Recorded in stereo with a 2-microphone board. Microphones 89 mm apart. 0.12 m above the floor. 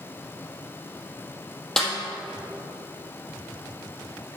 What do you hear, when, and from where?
1.8 s a snare drum: 5° left (ahead or behind), 2 m